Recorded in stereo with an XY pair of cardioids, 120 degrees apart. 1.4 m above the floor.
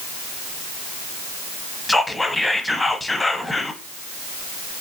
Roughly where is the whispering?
Ahead.